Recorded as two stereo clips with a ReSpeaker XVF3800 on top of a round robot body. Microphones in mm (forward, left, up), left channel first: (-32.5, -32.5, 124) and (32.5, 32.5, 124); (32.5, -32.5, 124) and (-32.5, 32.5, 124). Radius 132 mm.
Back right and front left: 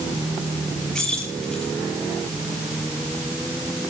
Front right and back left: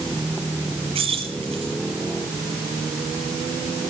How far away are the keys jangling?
About 8 m.